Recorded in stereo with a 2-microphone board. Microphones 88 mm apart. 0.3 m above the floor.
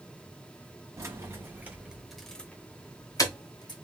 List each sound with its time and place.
1.0 s keys jangling: 35° right (ahead or behind), 1.7 m; by 3.7 s 55° left (ahead or behind), 1.5 m